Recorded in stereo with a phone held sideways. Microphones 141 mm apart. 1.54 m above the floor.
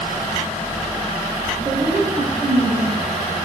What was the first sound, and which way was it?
A woman speaking, 55° right (ahead or behind).